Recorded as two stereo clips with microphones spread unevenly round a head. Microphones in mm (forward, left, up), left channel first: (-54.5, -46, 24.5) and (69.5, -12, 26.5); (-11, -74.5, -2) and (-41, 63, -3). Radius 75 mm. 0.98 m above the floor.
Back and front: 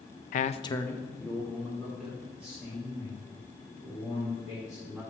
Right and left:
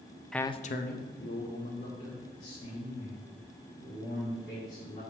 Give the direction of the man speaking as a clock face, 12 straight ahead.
6 o'clock.